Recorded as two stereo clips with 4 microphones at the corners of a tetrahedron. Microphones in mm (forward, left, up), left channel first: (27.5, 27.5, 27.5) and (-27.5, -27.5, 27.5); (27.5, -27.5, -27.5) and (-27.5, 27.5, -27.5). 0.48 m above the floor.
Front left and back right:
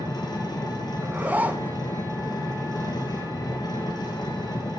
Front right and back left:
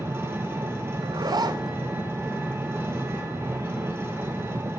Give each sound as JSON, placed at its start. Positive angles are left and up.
{"t": 0.0, "sound": "an engine running", "azimuth_deg": 75, "distance_m": 2.5}
{"t": 1.0, "sound": "a zipper", "azimuth_deg": 155, "distance_m": 0.8}